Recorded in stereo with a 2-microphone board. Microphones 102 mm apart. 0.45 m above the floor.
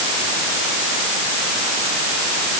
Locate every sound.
Only background noise.